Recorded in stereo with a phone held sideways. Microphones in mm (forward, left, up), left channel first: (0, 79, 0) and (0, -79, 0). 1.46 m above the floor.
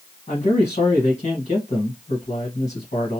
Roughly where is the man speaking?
Left.